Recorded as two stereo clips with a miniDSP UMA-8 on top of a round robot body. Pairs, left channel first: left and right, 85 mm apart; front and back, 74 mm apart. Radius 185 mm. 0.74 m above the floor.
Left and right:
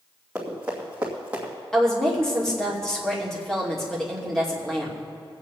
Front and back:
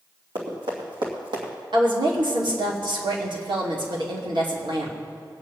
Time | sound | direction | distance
0.3 | running footsteps | 170° right | 3 m
1.7 | a woman speaking | 175° left | 2.5 m